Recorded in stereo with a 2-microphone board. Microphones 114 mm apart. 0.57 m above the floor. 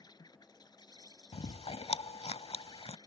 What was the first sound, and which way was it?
An insect, 35° left (ahead or behind).